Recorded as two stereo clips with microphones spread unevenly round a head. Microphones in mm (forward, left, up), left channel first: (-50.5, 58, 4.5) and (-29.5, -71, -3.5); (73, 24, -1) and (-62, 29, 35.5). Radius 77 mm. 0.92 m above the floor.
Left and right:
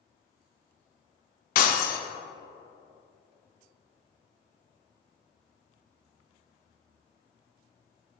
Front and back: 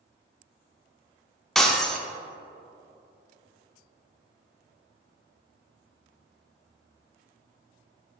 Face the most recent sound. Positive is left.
turn(degrees=95)